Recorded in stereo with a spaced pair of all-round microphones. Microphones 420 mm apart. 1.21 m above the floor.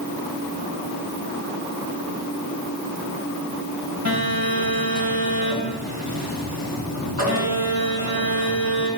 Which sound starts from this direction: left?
A phone buzzing, at 4.0 s.